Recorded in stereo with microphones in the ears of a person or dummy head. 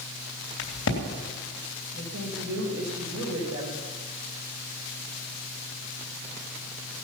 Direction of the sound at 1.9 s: 85° right.